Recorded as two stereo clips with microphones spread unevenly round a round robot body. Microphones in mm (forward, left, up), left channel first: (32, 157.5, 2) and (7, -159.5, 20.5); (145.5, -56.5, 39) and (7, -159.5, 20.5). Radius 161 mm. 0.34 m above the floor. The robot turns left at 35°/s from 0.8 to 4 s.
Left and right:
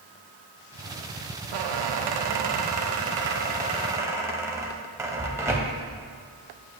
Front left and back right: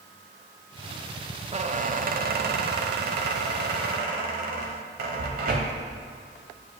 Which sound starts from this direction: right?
A squeak, at 1.5 s.